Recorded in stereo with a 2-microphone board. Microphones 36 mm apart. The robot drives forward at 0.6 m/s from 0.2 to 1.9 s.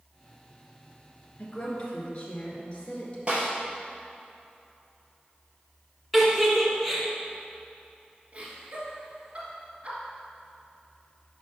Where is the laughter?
40° right (ahead or behind), 1.9 m.